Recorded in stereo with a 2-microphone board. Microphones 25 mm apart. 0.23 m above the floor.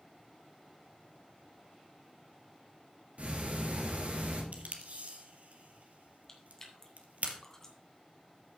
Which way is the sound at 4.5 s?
65° right (ahead or behind).